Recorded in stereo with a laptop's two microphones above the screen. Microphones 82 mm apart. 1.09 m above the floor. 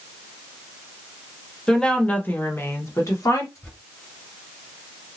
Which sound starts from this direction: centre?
A woman speaking, at 1.7 s.